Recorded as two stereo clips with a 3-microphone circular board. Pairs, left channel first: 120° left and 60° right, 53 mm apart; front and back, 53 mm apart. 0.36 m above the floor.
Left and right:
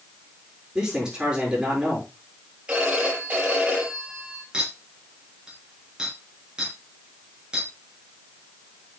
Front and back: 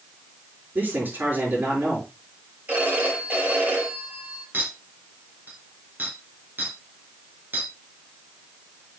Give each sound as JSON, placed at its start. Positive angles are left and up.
{"t": 0.8, "sound": "a man speaking", "azimuth_deg": -135, "distance_m": 6.5}
{"t": 2.7, "sound": "a phone ringing", "azimuth_deg": -125, "distance_m": 6.0}
{"t": 4.5, "sound": "a clink", "azimuth_deg": -130, "distance_m": 4.0}